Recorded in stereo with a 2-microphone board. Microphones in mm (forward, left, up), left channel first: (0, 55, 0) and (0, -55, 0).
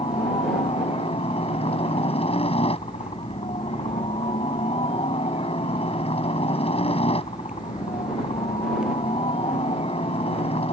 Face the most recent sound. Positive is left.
turn(degrees=65)  # may be behind; listen again after turning